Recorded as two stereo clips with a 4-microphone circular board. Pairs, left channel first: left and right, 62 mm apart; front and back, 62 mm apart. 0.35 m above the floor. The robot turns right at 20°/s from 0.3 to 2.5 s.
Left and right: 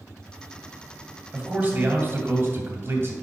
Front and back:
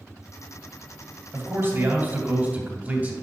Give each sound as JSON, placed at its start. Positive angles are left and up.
{"t": 1.3, "sound": "a man speaking", "azimuth_deg": -155, "distance_m": 2.0}